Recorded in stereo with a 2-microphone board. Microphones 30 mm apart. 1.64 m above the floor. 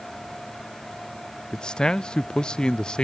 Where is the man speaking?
30° left (ahead or behind), 0.5 m.